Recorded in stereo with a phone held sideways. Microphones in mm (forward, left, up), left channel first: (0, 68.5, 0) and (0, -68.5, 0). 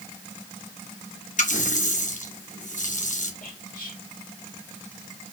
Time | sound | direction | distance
1.4 | a running tap | 65° left (ahead or behind) | 1.0 m
3.4 | whispering | 85° left | 1.7 m